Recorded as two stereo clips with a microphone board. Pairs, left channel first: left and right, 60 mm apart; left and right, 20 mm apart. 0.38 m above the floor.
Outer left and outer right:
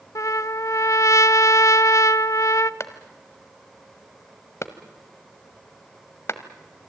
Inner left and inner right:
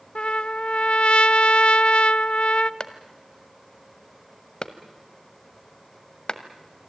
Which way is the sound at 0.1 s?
60° left (ahead or behind).